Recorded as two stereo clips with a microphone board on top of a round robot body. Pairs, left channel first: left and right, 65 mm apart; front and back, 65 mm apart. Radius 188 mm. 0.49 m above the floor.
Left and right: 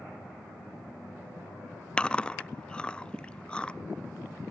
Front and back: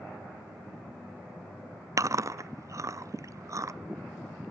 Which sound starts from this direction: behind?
Chewing, at 2.0 s.